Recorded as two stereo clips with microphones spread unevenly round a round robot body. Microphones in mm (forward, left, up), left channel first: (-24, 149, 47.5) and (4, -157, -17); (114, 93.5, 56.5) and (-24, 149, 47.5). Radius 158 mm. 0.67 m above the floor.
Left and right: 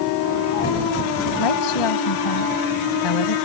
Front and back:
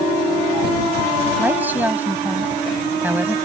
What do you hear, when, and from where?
1.4 s a woman speaking: 80° left